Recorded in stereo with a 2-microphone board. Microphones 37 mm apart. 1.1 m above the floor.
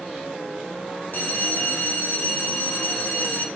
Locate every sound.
1.1 s a bell: 60° left (ahead or behind), 0.5 m